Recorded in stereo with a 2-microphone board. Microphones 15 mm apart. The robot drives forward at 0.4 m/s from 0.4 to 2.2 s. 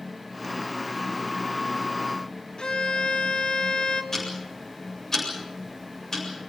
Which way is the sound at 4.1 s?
30° left (ahead or behind).